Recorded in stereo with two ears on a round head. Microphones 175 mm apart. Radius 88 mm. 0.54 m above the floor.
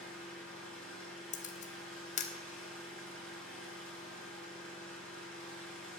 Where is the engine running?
5° left (ahead or behind), 6.5 m.